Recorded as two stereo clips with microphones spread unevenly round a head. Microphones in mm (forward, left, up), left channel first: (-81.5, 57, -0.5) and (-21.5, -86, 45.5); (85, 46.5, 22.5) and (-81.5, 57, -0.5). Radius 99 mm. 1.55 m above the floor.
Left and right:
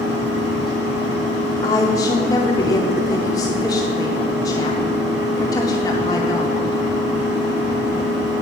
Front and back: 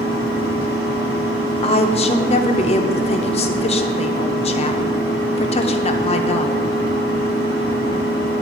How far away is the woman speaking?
About 0.6 m.